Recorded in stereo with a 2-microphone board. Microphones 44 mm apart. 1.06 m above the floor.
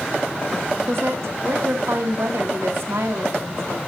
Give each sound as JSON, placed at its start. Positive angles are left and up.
{"t": 0.9, "sound": "a woman speaking", "side_deg": -80, "distance_m": 2.0}